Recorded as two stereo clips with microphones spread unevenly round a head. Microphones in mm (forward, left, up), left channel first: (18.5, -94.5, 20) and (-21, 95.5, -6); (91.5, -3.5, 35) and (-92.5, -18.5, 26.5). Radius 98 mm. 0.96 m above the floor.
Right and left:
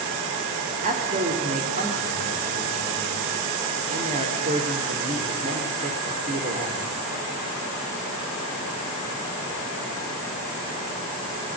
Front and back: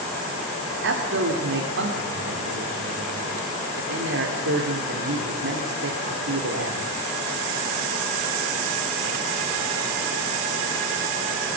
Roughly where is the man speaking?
Behind left.